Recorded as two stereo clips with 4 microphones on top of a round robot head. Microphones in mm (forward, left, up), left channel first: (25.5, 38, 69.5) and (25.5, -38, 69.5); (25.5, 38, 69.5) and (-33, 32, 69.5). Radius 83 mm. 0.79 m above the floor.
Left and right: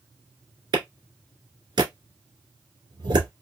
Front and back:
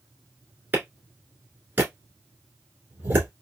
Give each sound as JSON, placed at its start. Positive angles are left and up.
{"t": 0.7, "sound": "a clap", "azimuth_deg": -115, "distance_m": 1.9}